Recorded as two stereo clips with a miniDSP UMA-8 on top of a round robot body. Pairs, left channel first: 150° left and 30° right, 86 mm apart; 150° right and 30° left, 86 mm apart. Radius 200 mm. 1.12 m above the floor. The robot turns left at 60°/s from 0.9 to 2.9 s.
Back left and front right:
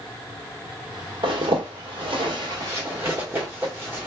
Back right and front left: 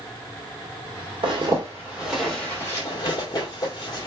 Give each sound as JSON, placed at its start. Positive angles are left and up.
{"t": 1.2, "sound": "a zipper", "azimuth_deg": 0, "distance_m": 1.6}